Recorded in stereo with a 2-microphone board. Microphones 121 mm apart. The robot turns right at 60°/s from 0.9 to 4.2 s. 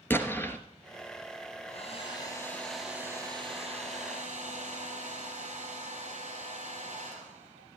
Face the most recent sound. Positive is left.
turn(degrees=-95)